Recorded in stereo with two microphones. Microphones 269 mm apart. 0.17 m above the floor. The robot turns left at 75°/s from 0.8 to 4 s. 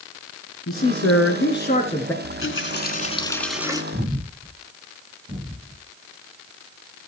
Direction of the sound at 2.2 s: 95° left.